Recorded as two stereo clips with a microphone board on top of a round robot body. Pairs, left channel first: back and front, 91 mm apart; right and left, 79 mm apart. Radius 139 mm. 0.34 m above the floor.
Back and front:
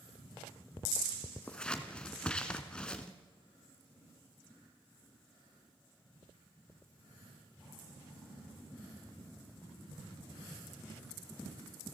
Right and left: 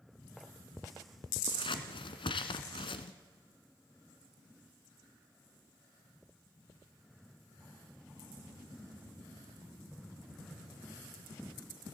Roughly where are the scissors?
Right.